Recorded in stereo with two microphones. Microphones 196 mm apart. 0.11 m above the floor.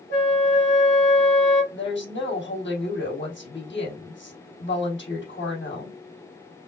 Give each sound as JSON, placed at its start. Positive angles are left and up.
{"t": 0.1, "sound": "a flute", "side_deg": 75, "distance_m": 2.5}
{"t": 1.7, "sound": "a woman speaking", "side_deg": 70, "distance_m": 3.5}